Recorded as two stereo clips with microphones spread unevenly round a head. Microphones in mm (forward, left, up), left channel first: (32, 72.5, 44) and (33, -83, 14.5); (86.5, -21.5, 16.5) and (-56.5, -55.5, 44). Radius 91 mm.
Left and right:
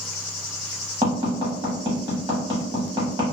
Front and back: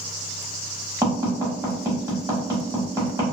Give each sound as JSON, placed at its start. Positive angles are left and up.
{"t": 1.0, "sound": "tapping", "azimuth_deg": -155, "distance_m": 0.9}